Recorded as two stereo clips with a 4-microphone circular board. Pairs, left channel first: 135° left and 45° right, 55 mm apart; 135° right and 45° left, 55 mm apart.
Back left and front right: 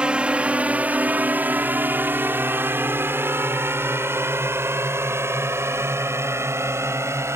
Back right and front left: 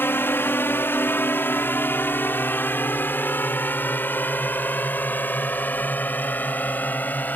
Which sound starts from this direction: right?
A drone, at 0.0 s.